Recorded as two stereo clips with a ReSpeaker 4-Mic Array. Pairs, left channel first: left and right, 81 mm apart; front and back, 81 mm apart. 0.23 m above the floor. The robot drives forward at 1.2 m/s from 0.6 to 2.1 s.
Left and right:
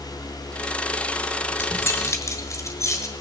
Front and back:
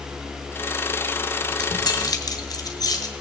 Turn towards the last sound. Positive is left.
turn(degrees=40)